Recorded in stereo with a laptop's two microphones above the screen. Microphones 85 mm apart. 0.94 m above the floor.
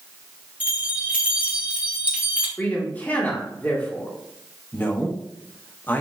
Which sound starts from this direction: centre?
A man speaking, at 2.6 s.